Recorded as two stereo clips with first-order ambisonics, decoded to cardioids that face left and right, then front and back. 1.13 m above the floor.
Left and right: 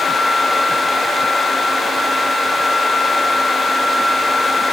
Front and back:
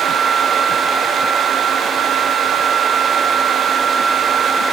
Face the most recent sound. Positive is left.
No sound to turn to.